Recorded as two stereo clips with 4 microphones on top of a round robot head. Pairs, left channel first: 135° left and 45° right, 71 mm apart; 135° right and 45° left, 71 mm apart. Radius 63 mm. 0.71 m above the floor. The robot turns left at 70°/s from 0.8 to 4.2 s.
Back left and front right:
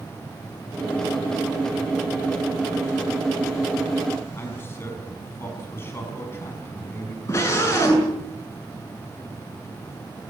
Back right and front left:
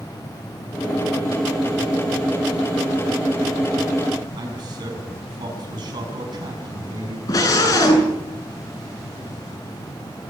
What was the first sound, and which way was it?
A man speaking, 75° left.